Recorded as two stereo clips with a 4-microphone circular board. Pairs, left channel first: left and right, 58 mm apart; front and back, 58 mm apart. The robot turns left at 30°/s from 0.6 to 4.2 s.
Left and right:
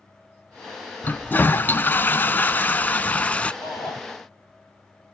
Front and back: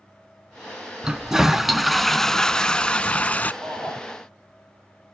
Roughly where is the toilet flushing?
Behind left.